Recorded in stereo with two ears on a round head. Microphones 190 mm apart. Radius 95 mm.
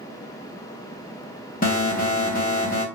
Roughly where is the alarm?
Left.